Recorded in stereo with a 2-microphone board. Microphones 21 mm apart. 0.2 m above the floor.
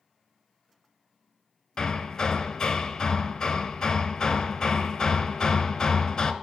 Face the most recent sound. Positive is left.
turn(degrees=30)  # may be behind; listen again after turning